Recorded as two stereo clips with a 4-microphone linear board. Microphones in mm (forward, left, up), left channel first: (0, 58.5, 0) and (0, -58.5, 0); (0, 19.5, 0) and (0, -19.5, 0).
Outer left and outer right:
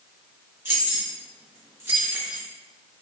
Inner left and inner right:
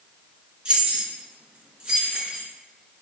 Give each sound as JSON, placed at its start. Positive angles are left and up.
{"t": 0.7, "sound": "keys jangling", "side_deg": -20, "distance_m": 0.8}